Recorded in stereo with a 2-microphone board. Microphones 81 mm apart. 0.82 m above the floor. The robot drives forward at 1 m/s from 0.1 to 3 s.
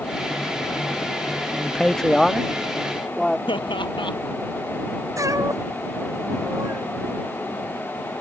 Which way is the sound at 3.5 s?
85° left.